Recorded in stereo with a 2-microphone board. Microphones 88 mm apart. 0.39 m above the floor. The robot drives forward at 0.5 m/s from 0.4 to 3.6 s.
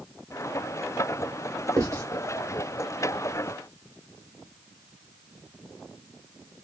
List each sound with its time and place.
1.8 s writing: 40° right (ahead or behind), 1.9 m; by 2.0 s 35° right (ahead or behind), 1.9 m